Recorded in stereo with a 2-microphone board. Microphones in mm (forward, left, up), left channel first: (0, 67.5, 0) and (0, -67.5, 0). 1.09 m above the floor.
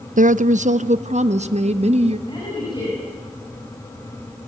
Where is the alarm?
I don't hear an alarm.